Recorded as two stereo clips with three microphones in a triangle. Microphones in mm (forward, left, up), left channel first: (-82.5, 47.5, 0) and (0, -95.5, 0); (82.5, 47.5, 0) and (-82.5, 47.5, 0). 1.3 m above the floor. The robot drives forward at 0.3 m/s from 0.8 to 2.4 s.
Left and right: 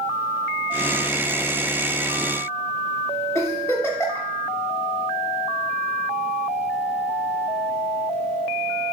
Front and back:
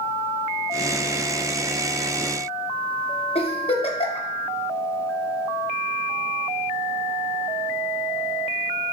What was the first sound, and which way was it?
A giggle, 50° left.